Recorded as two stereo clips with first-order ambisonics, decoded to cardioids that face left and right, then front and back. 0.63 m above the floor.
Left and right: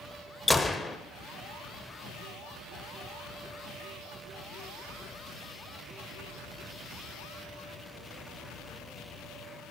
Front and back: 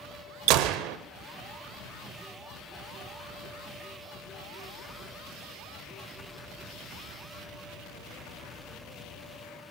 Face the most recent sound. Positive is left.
turn(degrees=175)